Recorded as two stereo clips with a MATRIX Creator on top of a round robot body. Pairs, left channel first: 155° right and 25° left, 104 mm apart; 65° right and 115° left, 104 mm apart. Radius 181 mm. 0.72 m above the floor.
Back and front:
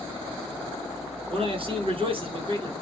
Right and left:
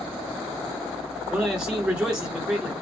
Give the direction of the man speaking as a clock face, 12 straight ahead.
11 o'clock.